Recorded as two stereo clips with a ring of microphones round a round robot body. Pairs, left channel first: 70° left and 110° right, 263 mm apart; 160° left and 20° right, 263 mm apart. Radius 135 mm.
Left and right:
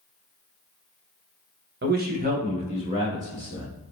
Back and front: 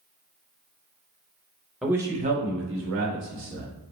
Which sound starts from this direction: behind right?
A man speaking, at 1.8 s.